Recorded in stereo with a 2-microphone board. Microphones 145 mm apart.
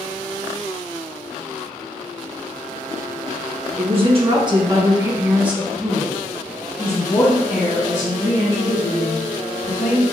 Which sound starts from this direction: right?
A woman speaking, at 3.8 s.